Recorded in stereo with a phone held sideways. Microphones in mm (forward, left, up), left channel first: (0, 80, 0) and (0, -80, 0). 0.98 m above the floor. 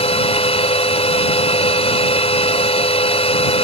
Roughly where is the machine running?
Left.